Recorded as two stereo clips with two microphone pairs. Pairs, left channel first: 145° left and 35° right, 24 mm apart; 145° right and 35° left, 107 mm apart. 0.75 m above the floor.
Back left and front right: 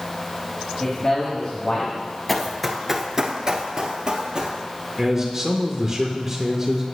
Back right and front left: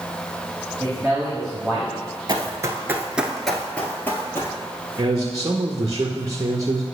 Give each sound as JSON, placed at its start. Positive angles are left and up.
{"t": 0.8, "sound": "a man speaking", "azimuth_deg": 115, "distance_m": 1.6}
{"t": 2.3, "sound": "running footsteps", "azimuth_deg": 65, "distance_m": 0.9}
{"t": 5.0, "sound": "a man speaking", "azimuth_deg": 40, "distance_m": 0.6}